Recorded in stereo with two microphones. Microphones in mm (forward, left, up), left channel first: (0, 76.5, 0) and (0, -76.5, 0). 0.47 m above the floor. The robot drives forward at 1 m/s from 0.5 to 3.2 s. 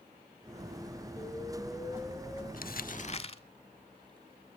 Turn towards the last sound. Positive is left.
turn(degrees=40)  # may be behind; listen again after turning